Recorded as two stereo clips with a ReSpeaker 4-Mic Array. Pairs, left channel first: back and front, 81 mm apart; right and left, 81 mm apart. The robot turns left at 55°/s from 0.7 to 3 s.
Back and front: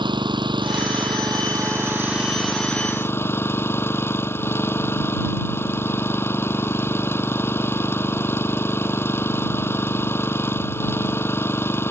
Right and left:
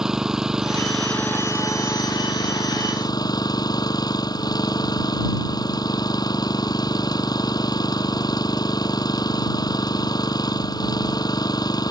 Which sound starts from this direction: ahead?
An engine running, at 0.0 s.